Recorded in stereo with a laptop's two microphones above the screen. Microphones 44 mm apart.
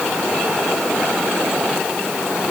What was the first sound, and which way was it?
Only background noise.